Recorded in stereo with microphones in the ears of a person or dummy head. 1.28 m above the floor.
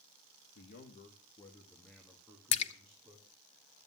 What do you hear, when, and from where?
0.6 s a man speaking: 55° left (ahead or behind), 1.6 m; by 3.3 s 20° right (ahead or behind), 3 m
2.5 s a splash: 35° left (ahead or behind), 0.9 m